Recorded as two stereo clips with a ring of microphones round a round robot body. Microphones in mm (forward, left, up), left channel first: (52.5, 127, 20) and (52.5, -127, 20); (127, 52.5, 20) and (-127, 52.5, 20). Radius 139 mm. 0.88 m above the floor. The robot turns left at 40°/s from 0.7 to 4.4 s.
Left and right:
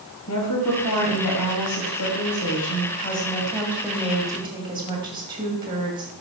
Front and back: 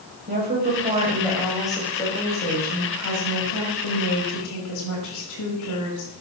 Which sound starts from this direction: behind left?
A woman speaking, at 0.3 s.